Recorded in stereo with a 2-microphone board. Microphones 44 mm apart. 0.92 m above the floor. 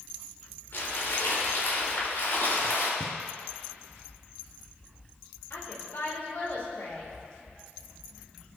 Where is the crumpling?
70° left (ahead or behind), 3.5 m.